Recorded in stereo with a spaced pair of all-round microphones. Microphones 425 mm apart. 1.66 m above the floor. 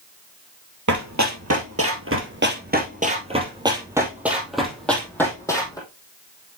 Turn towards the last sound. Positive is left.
turn(degrees=10)  # may be behind; listen again after turning